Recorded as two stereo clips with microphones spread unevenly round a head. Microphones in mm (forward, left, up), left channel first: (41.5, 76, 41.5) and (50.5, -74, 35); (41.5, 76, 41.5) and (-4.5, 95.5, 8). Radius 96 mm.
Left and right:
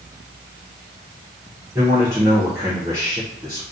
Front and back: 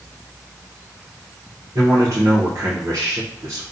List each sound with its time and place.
1.8 s a man speaking: 160° right, 0.6 m